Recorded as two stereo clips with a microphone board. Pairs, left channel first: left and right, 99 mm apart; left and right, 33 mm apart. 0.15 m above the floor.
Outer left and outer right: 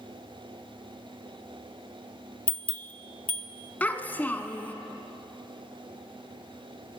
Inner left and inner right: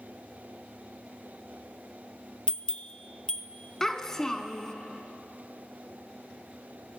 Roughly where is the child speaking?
Centre.